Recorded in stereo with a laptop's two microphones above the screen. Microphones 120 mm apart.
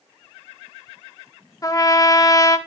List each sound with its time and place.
1.6 s a trumpet: 30° left (ahead or behind), 0.8 m